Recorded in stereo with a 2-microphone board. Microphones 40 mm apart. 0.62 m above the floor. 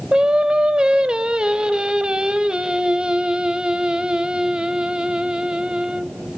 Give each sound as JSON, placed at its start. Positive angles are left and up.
{"t": 0.1, "sound": "singing", "side_deg": -25, "distance_m": 0.9}